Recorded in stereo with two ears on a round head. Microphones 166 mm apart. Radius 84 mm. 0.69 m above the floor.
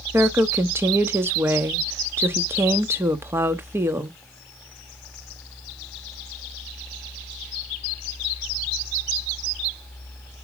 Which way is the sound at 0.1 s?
15° right (ahead or behind).